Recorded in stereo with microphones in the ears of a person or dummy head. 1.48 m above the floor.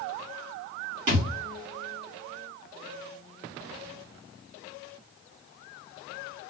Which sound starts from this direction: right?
A thud, at 1.1 s.